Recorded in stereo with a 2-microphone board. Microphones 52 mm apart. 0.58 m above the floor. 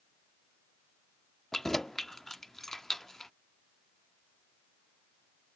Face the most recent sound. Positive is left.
turn(degrees=10)  # may be behind; listen again after turning